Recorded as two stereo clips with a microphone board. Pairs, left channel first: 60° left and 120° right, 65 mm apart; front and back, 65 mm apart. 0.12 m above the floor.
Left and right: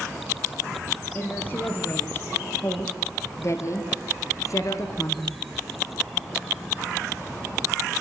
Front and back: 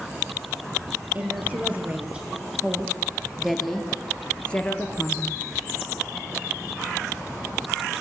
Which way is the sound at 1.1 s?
120° left.